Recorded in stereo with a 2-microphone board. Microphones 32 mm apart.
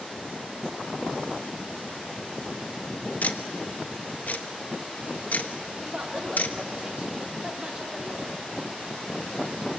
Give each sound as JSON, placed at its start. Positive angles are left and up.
{"t": 3.2, "sound": "ticking", "side_deg": 60, "distance_m": 1.2}
{"t": 5.8, "sound": "a woman speaking", "side_deg": -35, "distance_m": 4.0}